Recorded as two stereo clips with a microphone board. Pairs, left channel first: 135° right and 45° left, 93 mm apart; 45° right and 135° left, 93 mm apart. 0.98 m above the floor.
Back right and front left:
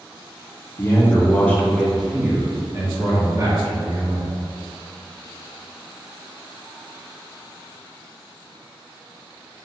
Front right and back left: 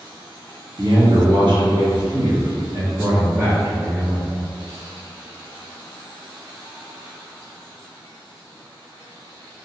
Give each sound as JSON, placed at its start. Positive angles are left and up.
{"t": 0.8, "sound": "a man speaking", "azimuth_deg": 170, "distance_m": 1.2}